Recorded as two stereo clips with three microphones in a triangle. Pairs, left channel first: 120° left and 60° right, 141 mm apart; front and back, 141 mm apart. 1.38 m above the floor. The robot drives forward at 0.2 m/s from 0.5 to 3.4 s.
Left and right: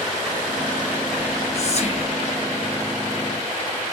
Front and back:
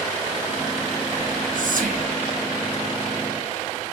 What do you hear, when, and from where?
1.2 s whispering: 155° left, 0.5 m; by 2.1 s 165° left, 0.7 m